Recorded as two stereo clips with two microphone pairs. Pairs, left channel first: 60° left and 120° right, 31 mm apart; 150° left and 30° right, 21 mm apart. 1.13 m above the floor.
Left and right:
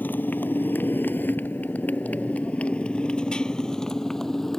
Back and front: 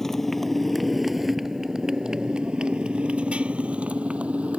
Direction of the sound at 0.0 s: 75° left.